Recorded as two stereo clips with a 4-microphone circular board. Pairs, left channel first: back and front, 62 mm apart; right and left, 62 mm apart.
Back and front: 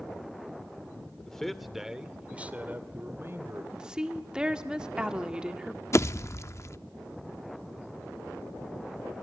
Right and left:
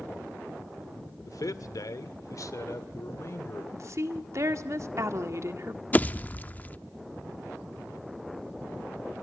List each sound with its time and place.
1.2 s a man speaking: 100° right, 1.9 m; by 3.6 s 45° right, 2.5 m
3.7 s a woman speaking: 70° left, 1.6 m
5.9 s a pop: 150° right, 0.7 m